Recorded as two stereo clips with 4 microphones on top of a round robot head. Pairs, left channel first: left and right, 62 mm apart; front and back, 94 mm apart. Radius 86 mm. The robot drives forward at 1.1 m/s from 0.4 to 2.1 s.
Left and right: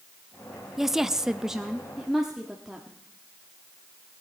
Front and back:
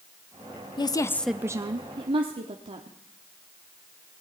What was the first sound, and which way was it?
A woman speaking, 5° right.